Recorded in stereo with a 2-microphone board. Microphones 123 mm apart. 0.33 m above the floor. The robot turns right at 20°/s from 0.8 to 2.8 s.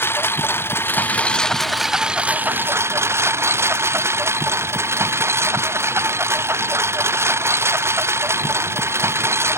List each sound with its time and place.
0.0 s a lawn mower: 160° left; by 9.6 s 160° right